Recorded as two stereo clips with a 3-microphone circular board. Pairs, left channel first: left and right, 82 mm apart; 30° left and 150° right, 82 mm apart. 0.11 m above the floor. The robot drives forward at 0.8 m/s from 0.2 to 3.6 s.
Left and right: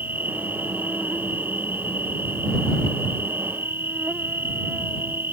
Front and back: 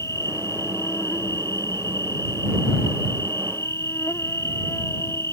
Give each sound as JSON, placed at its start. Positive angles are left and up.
{"t": 0.0, "sound": "an insect", "azimuth_deg": -20}